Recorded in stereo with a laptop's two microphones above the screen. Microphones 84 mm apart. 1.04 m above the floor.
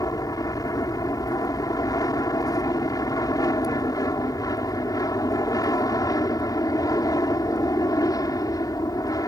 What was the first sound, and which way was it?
An aircraft, 50° left (ahead or behind).